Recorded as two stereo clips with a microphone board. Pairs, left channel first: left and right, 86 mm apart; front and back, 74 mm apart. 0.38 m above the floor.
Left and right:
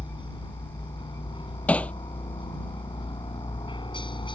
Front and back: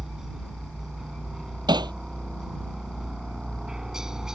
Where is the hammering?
165° left.